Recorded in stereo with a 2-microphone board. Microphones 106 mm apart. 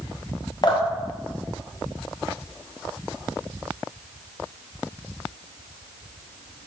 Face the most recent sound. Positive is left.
turn(degrees=40)  # may be behind; listen again after turning